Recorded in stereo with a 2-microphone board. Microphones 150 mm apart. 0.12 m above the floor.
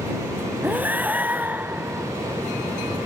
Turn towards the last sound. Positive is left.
turn(degrees=-10)  # may be behind; listen again after turning